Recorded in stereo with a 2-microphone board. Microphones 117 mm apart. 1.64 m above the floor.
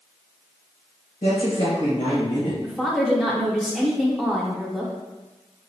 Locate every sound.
1.2 s a woman speaking: 45° left (ahead or behind), 1.2 m
2.6 s a woman speaking: centre (ahead or behind), 0.7 m